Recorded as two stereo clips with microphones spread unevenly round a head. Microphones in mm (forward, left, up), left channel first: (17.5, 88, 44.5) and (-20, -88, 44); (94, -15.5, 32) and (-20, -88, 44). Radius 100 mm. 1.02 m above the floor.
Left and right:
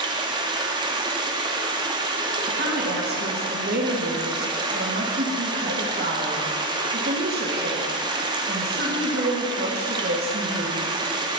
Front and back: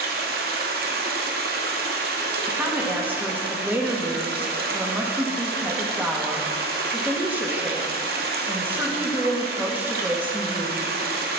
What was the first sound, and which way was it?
Running water, 170° right.